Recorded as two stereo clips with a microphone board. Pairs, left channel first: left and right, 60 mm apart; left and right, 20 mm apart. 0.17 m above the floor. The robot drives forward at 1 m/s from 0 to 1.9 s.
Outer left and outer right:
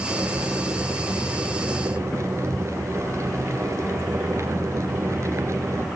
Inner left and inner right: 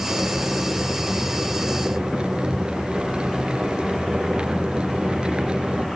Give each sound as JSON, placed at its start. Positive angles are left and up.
{"t": 0.1, "sound": "boiling", "side_deg": -35, "distance_m": 4.0}